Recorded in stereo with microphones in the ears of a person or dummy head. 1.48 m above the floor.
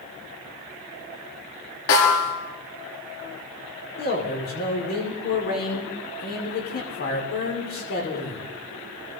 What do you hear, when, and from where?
1.9 s a snare drum: 75° left (ahead or behind), 7 m
4.0 s a man speaking: 45° left (ahead or behind), 6 m